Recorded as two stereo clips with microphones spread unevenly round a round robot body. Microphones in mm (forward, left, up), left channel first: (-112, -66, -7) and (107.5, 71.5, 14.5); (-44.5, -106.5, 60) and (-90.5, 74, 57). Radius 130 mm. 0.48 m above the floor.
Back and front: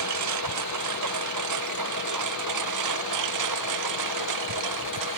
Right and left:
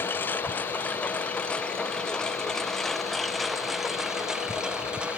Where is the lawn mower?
5° left; by 5.2 s 20° left.